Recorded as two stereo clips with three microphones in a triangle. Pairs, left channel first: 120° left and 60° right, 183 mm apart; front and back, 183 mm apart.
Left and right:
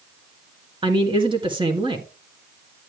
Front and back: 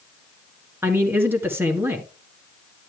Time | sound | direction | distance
0.8 | a man speaking | 105° right | 1.9 m